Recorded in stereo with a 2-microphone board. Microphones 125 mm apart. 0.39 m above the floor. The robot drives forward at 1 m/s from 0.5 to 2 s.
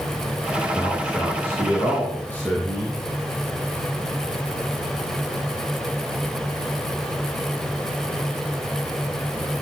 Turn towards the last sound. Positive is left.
turn(degrees=15)  # may be behind; listen again after turning